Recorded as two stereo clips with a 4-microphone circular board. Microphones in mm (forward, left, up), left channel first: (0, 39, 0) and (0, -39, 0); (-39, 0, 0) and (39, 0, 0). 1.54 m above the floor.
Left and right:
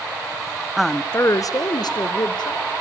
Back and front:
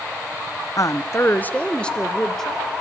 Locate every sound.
0.8 s a woman speaking: 175° right, 0.5 m; by 2.7 s 95° left, 1.8 m